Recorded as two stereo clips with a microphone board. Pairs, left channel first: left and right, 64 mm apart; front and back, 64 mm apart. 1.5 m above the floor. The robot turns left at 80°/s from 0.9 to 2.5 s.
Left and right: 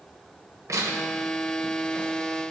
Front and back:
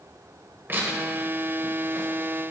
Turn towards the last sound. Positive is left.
turn(degrees=110)